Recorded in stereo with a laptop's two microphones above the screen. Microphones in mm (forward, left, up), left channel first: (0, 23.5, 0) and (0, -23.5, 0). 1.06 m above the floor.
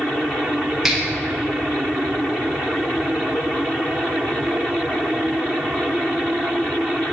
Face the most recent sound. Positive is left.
turn(degrees=-5)  # may be behind; listen again after turning